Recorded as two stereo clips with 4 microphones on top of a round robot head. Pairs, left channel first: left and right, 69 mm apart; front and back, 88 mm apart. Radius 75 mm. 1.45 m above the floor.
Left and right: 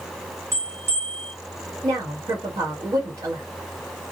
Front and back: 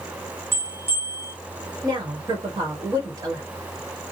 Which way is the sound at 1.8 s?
125° right.